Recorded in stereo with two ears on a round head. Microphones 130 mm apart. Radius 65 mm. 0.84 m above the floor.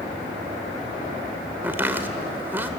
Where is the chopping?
15° right (ahead or behind), 1.5 m.